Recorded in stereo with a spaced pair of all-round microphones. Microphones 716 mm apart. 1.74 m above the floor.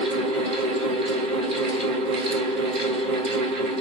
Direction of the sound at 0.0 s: 80° right.